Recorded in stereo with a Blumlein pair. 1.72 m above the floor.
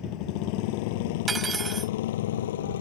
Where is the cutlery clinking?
15° right.